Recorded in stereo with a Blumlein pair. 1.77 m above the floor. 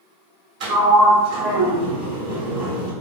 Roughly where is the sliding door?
Ahead right.